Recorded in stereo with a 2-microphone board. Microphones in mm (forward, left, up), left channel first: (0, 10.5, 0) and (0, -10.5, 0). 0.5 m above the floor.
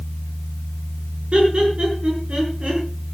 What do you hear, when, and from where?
1.3 s laughter: 60° right (ahead or behind), 6.5 m